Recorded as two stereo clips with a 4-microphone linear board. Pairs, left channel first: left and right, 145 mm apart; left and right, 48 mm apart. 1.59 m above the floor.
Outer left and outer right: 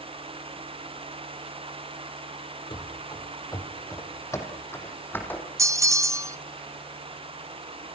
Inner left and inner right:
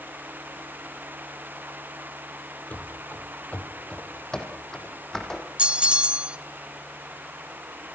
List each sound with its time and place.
2.7 s running footsteps: 35° left (ahead or behind), 2.5 m; by 5.5 s 10° left (ahead or behind), 4 m
5.6 s a bell: 20° right (ahead or behind), 0.6 m